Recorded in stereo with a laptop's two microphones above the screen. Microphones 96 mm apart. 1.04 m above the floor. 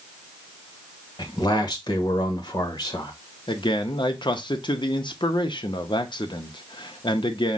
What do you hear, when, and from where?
1.2 s a man speaking: 50° left (ahead or behind), 1.2 m
3.5 s a man speaking: 55° left (ahead or behind), 0.8 m